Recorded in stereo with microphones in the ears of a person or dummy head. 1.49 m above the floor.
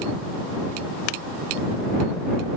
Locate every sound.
Only background noise.